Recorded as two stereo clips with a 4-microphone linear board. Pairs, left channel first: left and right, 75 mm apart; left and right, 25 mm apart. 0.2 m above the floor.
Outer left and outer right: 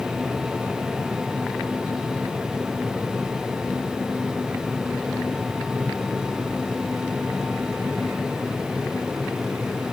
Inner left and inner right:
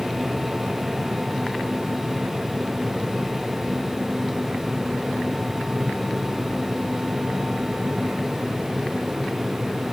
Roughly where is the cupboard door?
I don't hear a cupboard door.